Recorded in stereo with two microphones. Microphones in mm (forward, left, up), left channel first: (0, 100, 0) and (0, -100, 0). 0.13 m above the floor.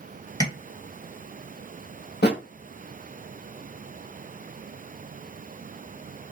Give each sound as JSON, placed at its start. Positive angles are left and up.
{"t": 0.4, "sound": "tapping", "side_deg": 20, "distance_m": 2.0}
{"t": 2.2, "sound": "a thud", "side_deg": 55, "distance_m": 1.3}